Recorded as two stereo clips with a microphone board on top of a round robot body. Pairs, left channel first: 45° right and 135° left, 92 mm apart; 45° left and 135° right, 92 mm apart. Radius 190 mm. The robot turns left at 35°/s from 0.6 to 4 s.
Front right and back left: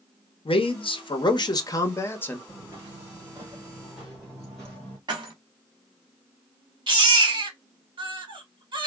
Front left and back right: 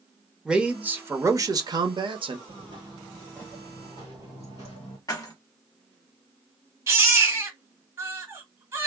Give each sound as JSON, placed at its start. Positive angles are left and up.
{"t": 0.5, "sound": "a man speaking", "azimuth_deg": -55, "distance_m": 0.8}
{"t": 2.5, "sound": "footsteps", "azimuth_deg": -150, "distance_m": 0.9}
{"t": 5.1, "sound": "keys jangling", "azimuth_deg": 95, "distance_m": 1.3}
{"t": 6.9, "sound": "a baby crying", "azimuth_deg": 165, "distance_m": 1.3}